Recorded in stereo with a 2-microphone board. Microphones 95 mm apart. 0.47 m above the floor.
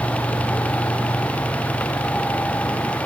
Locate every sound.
Only background noise.